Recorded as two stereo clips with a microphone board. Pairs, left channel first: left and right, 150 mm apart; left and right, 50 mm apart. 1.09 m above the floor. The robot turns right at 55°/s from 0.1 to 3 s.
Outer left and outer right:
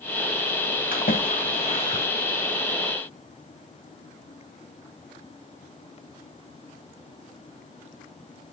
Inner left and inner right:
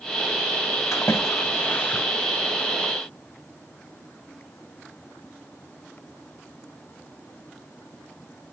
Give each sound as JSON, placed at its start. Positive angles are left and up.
{"t": 0.9, "sound": "a splash", "side_deg": 80, "distance_m": 2.5}